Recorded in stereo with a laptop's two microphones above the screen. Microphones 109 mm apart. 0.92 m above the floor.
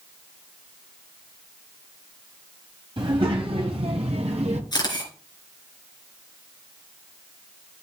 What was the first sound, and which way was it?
A child speaking, 50° right (ahead or behind).